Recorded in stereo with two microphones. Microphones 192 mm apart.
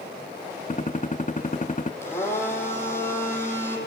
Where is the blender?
15° left (ahead or behind), 8 m.